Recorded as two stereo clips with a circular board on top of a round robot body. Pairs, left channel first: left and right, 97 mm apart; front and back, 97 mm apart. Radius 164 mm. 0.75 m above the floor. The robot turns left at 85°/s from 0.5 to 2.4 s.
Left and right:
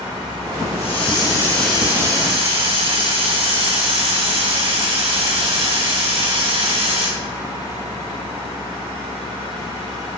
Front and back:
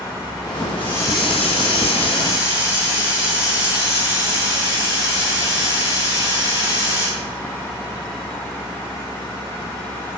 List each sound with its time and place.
0.8 s a hiss: 80° left, 7 m; by 7.1 s 60° right, 7 m